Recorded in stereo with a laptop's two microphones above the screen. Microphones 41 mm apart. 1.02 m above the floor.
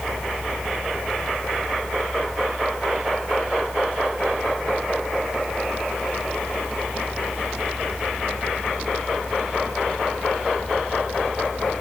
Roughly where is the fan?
Right.